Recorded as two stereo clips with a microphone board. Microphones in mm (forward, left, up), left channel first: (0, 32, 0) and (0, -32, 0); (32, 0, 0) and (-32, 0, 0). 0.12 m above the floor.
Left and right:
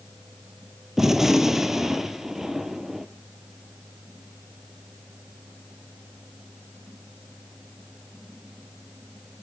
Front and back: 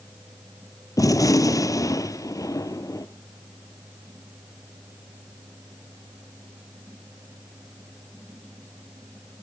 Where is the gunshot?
5° right, 1.1 m.